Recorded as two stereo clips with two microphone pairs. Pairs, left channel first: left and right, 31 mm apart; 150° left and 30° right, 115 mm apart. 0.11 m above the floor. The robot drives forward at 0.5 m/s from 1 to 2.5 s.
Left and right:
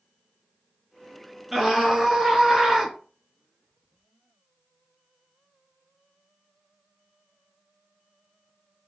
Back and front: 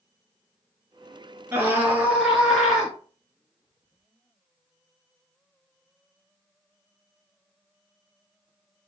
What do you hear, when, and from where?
1.5 s a scream: 50° right, 1.6 m; by 2.9 s 105° right, 1.5 m